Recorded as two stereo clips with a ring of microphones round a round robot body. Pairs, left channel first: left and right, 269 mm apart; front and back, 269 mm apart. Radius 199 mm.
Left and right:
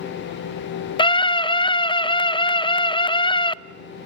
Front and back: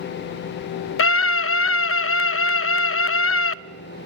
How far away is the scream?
About 0.7 m.